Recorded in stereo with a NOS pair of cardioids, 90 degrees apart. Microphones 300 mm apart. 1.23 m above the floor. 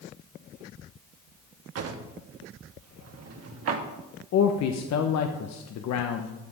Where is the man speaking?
65° left, 0.9 m.